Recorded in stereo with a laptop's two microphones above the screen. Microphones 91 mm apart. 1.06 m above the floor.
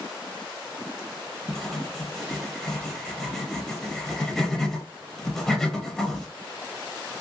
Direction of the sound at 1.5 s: Centre (ahead or behind).